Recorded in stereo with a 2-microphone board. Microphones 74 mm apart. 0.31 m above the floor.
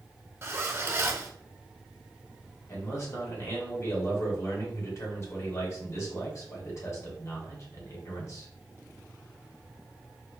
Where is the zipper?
35° right (ahead or behind), 0.7 m.